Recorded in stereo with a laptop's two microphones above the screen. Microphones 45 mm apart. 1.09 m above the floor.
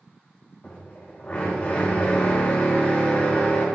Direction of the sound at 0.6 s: 40° left (ahead or behind).